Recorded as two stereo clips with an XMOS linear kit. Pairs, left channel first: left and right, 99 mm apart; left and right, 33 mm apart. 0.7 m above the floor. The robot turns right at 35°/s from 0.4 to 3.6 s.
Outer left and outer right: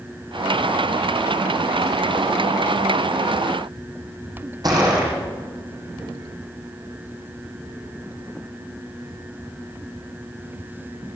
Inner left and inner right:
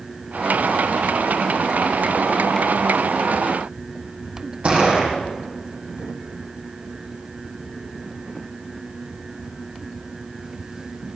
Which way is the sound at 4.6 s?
45° right (ahead or behind).